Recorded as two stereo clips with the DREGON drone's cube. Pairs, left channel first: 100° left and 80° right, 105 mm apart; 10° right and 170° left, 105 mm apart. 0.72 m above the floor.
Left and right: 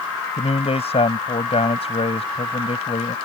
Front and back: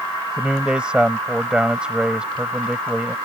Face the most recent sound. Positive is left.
turn(degrees=90)